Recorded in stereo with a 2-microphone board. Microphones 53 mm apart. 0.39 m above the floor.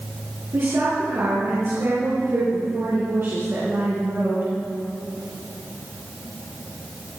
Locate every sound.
0.5 s a woman speaking: 60° right (ahead or behind), 6 m